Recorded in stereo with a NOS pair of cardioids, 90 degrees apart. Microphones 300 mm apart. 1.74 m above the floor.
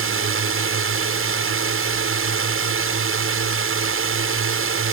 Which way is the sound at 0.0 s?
45° right.